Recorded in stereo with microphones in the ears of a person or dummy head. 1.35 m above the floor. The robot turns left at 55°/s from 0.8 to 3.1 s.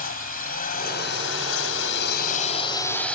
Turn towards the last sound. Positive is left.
turn(degrees=5)